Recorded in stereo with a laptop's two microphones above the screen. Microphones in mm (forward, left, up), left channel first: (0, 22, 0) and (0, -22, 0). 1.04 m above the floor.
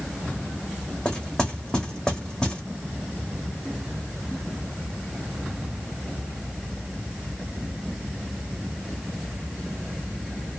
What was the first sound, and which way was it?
Knocking, 15° left (ahead or behind).